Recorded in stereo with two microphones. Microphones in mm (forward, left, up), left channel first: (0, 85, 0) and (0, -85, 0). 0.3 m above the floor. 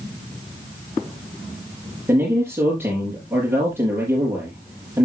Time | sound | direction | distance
2.1 | a man speaking | 10° right (ahead or behind) | 4.5 m